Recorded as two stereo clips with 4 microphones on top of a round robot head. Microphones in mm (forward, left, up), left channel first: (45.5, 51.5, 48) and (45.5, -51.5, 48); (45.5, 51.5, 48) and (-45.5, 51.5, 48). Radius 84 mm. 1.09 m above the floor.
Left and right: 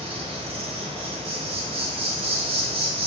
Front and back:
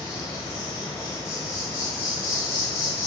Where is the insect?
65° right, 1.6 m.